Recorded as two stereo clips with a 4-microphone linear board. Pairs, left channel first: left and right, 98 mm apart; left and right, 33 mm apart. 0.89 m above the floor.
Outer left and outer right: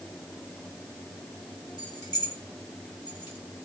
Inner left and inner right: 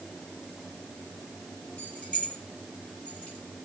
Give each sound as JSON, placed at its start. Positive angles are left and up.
{"t": 1.8, "sound": "keys jangling", "side_deg": 50, "distance_m": 3.0}